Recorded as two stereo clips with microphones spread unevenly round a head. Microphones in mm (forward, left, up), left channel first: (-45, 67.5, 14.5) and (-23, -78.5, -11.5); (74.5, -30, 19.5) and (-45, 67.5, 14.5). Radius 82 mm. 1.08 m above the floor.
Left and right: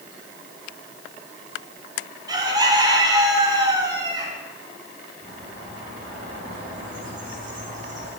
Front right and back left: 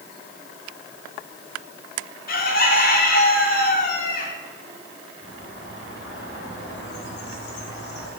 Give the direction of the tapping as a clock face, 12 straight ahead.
No tapping in this recording.